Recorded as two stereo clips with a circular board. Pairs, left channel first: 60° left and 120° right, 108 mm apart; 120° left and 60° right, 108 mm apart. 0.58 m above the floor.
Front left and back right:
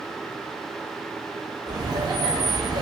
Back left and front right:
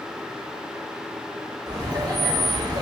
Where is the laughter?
90° right, 0.8 m.